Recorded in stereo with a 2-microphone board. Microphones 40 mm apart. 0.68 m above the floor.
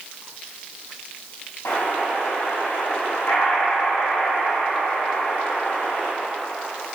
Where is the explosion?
65° left (ahead or behind), 3 m.